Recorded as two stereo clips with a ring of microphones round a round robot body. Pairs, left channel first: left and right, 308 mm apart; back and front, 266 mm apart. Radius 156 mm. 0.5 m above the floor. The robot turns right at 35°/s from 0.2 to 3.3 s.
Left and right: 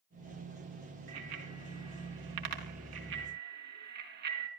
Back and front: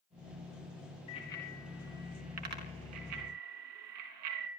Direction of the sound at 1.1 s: 110° right.